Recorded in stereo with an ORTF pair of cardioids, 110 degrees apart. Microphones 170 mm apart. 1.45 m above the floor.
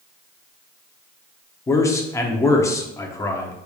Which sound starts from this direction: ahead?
A man speaking, at 1.7 s.